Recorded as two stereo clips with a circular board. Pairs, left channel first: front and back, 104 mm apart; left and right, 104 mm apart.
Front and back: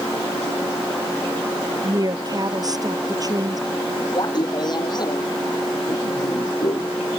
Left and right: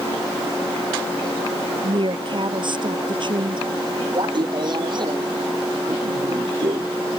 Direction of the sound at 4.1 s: 45° right.